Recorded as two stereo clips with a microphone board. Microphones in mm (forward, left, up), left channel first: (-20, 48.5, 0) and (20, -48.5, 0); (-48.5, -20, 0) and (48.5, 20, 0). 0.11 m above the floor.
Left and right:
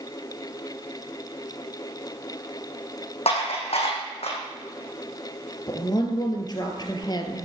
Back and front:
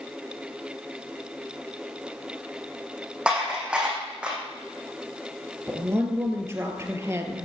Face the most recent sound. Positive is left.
turn(degrees=80)